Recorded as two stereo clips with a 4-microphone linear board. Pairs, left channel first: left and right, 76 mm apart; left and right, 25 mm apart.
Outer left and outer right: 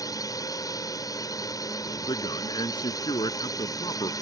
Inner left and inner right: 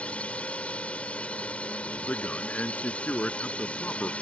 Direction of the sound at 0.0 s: 50° left (ahead or behind).